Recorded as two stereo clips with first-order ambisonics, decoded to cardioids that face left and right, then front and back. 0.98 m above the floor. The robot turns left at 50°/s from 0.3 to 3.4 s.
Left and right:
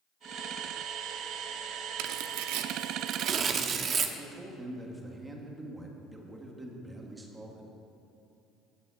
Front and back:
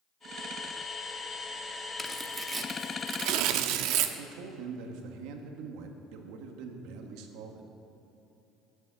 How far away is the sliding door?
I don't hear a sliding door.